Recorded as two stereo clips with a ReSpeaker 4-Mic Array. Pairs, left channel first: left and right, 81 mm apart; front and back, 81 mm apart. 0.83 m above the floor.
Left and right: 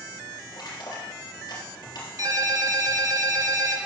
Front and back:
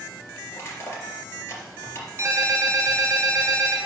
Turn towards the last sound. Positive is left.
turn(degrees=-125)